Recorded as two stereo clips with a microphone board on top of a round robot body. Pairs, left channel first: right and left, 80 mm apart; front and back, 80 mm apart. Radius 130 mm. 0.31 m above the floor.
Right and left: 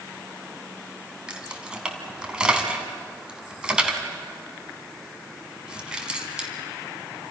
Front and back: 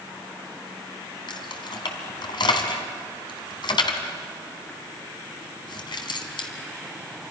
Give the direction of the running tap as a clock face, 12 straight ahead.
No running tap in this recording.